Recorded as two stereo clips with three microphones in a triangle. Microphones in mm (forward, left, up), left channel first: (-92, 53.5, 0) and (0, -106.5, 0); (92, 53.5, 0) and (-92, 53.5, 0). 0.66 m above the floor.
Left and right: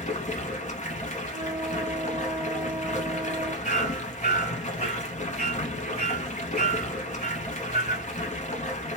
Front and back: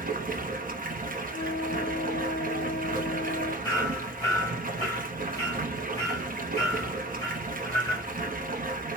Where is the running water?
160° left, 0.8 m.